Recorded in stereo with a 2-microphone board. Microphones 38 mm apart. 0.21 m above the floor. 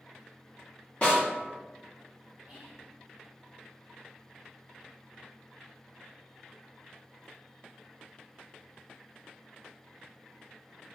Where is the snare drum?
35° left (ahead or behind), 1.1 m.